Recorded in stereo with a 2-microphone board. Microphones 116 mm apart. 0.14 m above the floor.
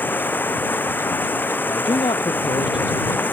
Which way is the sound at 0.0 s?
15° left (ahead or behind).